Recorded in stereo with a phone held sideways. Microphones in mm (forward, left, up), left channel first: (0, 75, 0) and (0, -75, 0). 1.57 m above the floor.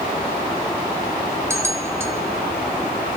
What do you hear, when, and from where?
1.5 s a bell: 15° right (ahead or behind), 2.5 m